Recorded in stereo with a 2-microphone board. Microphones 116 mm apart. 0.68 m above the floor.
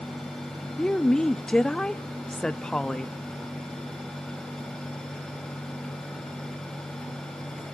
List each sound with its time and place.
0.8 s a woman speaking: 5° left (ahead or behind), 0.6 m